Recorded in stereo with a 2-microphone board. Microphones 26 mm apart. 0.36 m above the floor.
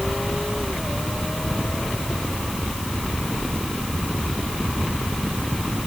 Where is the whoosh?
No whoosh in this recording.